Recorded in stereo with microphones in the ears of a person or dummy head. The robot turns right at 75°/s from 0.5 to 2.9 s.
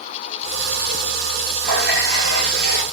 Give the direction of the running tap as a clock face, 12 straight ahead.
4 o'clock.